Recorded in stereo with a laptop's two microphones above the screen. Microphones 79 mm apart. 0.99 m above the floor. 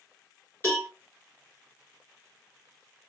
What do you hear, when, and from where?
0.6 s a cowbell: 30° left (ahead or behind), 3.5 m